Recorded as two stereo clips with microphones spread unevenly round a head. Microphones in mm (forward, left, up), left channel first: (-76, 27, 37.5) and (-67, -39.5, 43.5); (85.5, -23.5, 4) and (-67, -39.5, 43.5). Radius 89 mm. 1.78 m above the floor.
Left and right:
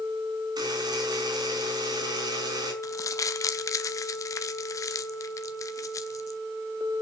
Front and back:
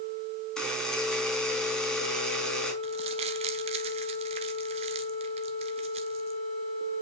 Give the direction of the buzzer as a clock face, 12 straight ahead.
3 o'clock.